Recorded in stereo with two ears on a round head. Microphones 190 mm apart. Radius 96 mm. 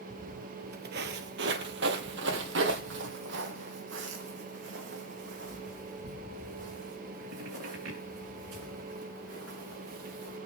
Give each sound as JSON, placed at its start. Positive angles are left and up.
{"t": 0.1, "sound": "footsteps", "side_deg": -40, "distance_m": 1.2}